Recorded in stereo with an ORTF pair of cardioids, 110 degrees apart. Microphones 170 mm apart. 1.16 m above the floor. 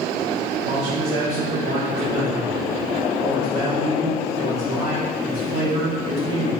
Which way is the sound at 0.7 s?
40° right.